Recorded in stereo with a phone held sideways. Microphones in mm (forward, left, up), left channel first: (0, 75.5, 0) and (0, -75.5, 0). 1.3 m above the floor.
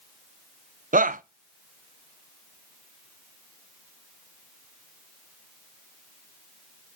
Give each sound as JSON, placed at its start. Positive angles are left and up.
{"t": 0.9, "sound": "a shout", "side_deg": -65, "distance_m": 0.6}